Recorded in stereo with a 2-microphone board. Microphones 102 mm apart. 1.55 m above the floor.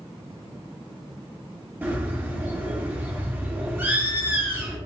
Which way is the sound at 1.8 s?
20° right (ahead or behind).